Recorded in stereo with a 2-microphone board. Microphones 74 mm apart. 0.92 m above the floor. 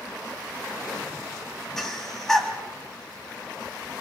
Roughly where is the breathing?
Centre.